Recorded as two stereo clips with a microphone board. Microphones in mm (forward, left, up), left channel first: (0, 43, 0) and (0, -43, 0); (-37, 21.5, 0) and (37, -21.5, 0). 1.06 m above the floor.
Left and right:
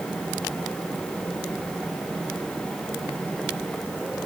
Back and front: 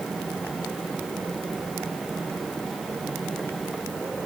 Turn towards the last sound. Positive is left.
No sound to turn to.